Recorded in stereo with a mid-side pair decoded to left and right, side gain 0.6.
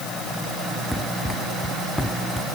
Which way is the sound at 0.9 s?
5° left.